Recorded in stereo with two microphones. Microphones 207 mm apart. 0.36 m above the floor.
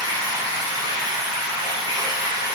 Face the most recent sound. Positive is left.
turn(degrees=-20)  # may be behind; listen again after turning